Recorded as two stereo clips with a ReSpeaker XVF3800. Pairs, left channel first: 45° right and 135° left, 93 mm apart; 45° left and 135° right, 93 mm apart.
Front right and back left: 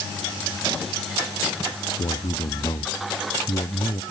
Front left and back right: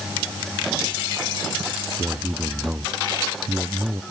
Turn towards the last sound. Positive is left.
turn(degrees=-70)